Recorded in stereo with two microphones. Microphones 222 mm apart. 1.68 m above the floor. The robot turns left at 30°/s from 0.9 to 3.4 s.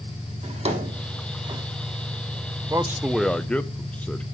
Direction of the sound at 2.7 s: 15° right (ahead or behind).